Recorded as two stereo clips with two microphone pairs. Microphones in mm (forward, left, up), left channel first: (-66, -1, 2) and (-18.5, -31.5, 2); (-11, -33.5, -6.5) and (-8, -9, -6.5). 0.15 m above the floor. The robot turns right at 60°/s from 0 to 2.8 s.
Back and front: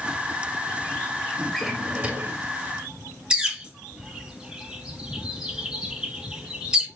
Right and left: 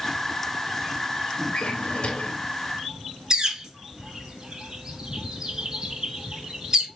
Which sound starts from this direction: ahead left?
A bird, at 3.3 s.